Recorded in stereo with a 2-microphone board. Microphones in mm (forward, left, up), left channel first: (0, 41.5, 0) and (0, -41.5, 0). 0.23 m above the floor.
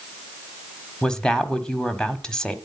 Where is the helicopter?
No helicopter in this recording.